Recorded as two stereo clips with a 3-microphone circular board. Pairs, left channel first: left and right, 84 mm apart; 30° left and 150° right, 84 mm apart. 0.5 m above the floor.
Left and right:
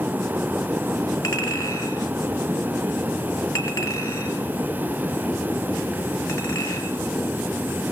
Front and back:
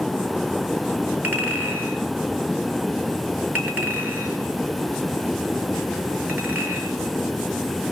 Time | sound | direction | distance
1.2 | a clink | 140° left | 5 m